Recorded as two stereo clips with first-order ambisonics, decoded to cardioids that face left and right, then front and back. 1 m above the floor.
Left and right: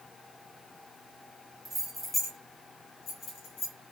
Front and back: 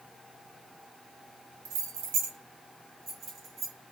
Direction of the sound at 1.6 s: 170° right.